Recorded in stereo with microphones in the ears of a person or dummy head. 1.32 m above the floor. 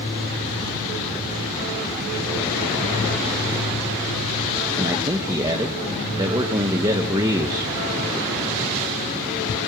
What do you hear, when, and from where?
4.8 s a man speaking: 25° right (ahead or behind), 1.8 m